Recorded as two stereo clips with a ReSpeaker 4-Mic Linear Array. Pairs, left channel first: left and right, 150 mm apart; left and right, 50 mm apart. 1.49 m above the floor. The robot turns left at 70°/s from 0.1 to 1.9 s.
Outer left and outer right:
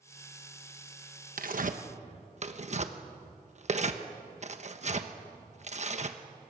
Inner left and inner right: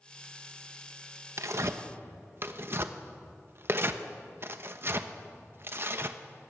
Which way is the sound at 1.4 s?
70° right (ahead or behind).